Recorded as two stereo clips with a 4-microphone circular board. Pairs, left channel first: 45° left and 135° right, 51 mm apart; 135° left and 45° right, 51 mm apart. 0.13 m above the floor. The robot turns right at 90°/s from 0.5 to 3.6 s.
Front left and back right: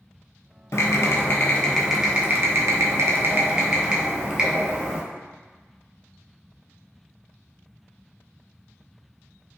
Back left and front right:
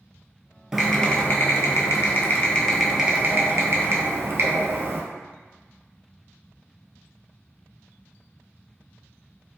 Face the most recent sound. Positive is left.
turn(degrees=-65)